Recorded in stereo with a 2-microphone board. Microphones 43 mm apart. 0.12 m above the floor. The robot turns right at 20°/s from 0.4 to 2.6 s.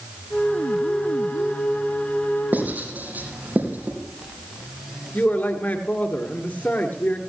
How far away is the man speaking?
About 2 m.